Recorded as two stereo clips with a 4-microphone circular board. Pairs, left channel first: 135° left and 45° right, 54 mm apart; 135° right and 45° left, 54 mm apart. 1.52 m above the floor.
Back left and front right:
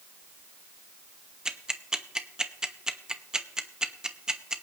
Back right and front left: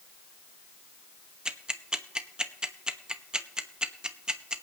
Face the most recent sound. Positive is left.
turn(degrees=5)